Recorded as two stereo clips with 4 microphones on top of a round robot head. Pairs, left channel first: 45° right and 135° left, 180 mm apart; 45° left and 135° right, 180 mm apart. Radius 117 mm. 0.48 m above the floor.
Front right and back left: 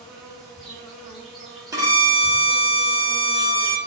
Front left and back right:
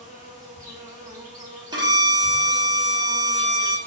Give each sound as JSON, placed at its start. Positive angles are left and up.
{"t": 0.0, "sound": "an insect", "azimuth_deg": -130, "distance_m": 1.3}
{"t": 1.7, "sound": "a violin", "azimuth_deg": -175, "distance_m": 0.9}